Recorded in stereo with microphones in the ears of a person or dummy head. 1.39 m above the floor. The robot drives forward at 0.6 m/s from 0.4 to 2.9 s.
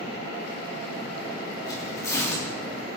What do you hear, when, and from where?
1.6 s tearing paper: 25° left (ahead or behind), 3 m; by 2.5 s 20° left (ahead or behind), 3 m